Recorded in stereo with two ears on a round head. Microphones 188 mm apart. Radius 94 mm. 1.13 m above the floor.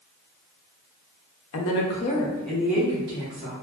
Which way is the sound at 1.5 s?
70° left (ahead or behind).